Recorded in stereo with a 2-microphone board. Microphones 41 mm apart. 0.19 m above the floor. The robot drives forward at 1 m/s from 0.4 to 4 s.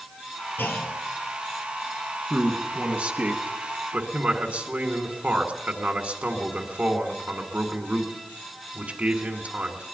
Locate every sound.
0.6 s a clunk: 60° left (ahead or behind), 2.5 m; by 1.0 s 65° left (ahead or behind), 2.5 m
2.3 s a man speaking: 35° right (ahead or behind), 2 m; by 9.8 s 40° right (ahead or behind), 2.0 m